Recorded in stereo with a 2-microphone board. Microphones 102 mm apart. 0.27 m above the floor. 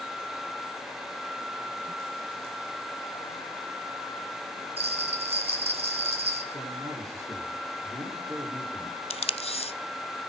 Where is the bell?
75° right (ahead or behind), 2 m.